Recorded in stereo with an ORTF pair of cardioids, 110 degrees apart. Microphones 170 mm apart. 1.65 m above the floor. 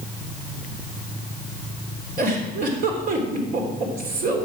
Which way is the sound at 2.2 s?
55° right.